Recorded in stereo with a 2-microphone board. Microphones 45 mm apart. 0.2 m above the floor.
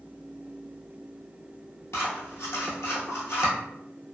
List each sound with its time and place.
1.9 s scissors: 75° left (ahead or behind), 1.0 m